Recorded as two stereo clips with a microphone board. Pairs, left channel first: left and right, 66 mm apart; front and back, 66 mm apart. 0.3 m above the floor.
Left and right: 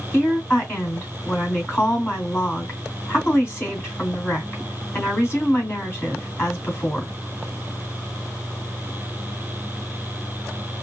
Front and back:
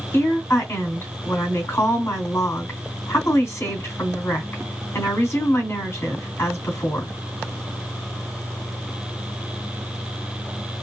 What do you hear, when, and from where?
0.1 s a woman speaking: 45° left, 2.5 m